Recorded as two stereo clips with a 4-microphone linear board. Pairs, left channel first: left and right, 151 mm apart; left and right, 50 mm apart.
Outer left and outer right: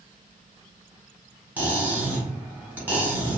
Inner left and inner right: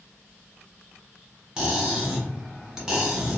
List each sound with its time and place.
1.6 s cutlery clinking: 10° right (ahead or behind), 1.1 m